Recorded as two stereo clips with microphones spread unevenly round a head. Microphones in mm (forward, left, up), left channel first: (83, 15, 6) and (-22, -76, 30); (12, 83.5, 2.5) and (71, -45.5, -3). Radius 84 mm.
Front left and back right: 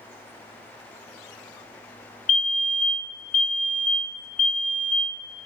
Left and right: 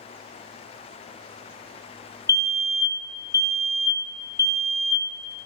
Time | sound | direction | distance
2.3 | a fire alarm | 50° left | 1.3 m